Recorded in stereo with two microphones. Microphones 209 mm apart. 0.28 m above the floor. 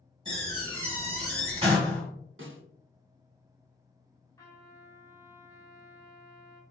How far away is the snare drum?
About 0.9 m.